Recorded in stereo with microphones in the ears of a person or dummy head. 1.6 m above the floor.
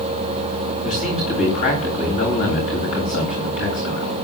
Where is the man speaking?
40° left (ahead or behind), 9.5 m.